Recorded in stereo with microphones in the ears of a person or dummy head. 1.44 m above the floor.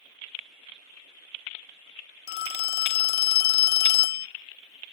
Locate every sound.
2.3 s a phone ringing: 60° left (ahead or behind), 0.6 m